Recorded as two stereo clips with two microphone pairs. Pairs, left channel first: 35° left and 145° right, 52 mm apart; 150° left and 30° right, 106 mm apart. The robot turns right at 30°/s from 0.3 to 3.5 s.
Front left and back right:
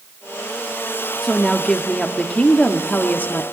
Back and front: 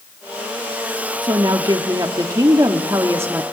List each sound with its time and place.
1.2 s a woman speaking: 45° right, 1.3 m; by 3.4 s 25° left, 1.3 m